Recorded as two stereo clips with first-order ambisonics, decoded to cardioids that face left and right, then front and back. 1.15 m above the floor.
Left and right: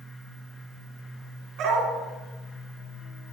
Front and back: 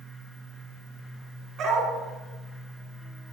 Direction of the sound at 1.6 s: 125° right.